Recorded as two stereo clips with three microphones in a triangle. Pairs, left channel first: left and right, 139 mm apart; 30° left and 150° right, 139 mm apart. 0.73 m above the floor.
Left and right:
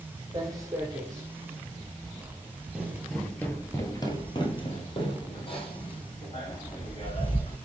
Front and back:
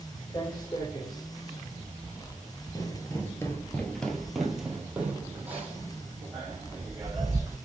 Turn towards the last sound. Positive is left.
turn(degrees=140)